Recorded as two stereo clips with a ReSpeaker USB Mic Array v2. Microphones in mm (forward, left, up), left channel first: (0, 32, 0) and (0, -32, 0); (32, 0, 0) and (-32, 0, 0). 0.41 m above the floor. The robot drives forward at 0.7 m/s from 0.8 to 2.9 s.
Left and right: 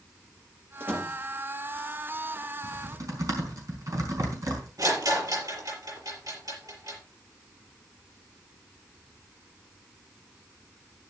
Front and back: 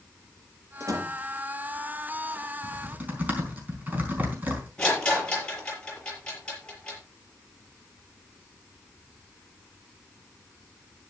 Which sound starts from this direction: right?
A rattle, at 4.8 s.